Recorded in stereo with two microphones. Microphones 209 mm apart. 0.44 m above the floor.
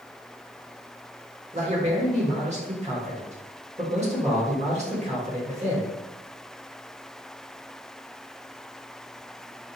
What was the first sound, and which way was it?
A man speaking, 35° right (ahead or behind).